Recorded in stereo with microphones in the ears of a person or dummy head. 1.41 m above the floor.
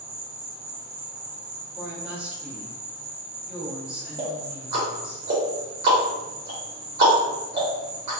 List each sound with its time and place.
0.0 s an insect: 25° right (ahead or behind), 0.7 m
1.8 s a woman speaking: 5° right (ahead or behind), 1.2 m
4.2 s ticking: 25° right (ahead or behind), 1.0 m